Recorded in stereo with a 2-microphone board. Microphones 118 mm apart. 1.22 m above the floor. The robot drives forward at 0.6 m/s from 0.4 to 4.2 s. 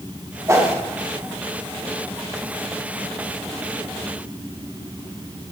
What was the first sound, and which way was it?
A whoosh, 25° right (ahead or behind).